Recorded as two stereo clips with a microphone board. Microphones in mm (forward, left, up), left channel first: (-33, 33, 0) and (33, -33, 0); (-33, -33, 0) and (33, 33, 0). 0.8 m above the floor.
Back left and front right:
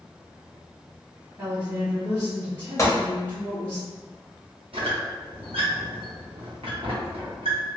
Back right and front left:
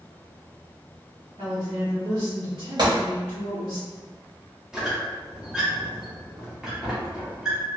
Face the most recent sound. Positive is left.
turn(degrees=-40)